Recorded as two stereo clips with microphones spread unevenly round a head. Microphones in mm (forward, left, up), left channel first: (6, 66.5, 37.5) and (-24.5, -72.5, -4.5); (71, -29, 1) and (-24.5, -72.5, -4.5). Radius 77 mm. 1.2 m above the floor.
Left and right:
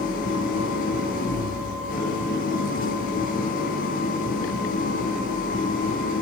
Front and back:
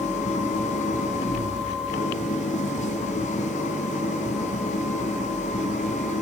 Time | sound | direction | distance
0.0 | an engine running | 45° left | 6.5 m